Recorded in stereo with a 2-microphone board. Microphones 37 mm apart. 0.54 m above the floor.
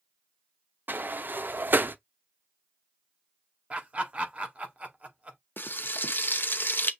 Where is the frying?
65° left (ahead or behind), 0.7 m.